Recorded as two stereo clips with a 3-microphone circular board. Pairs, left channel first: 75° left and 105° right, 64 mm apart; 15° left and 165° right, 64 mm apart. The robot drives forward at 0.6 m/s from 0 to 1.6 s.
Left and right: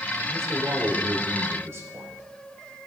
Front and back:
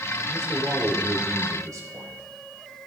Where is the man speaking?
135° right, 2 m; by 2.2 s 145° right, 3 m.